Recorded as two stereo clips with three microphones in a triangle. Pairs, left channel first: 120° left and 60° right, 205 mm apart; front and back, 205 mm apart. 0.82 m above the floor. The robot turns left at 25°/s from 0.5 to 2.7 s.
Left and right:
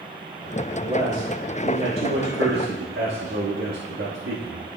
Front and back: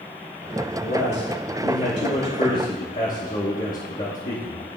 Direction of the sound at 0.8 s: Straight ahead.